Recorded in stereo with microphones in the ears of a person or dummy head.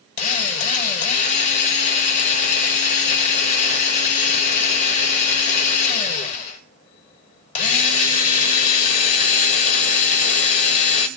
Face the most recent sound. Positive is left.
turn(degrees=40)  # may be behind; listen again after turning